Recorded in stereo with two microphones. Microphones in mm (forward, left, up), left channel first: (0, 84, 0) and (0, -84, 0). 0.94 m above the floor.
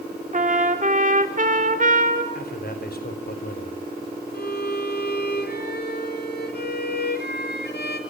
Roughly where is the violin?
Left.